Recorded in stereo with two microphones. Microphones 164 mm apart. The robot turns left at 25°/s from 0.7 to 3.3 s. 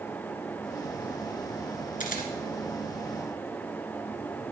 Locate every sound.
2.0 s a camera shutter: 55° left (ahead or behind), 2 m; by 2.3 s 60° left (ahead or behind), 2 m